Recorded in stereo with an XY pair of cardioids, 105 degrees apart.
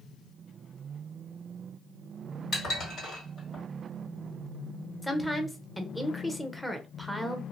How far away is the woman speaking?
About 0.8 m.